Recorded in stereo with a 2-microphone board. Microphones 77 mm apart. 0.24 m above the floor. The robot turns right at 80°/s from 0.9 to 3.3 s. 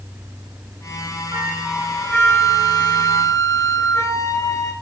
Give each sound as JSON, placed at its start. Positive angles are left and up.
{"t": 1.3, "sound": "a flute", "azimuth_deg": -30, "distance_m": 1.2}